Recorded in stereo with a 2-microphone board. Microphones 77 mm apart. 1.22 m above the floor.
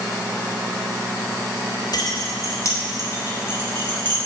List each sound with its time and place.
1.9 s keys jangling: 60° left (ahead or behind), 1.9 m; by 4.2 s 25° left (ahead or behind), 4 m